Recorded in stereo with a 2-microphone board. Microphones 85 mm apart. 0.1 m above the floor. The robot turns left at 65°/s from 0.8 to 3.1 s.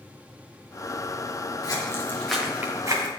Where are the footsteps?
50° left (ahead or behind), 3.5 m; by 3.1 s 50° right (ahead or behind), 2.5 m.